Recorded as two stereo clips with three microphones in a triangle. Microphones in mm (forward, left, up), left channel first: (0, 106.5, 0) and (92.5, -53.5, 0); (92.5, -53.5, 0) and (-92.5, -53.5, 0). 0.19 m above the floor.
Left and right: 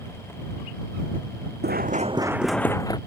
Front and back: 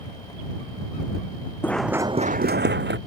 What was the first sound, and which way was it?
Running footsteps, 80° right.